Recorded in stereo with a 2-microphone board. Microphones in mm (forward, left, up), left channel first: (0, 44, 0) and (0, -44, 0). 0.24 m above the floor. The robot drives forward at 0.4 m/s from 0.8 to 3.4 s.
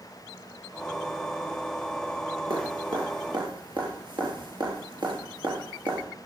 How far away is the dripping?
About 4 m.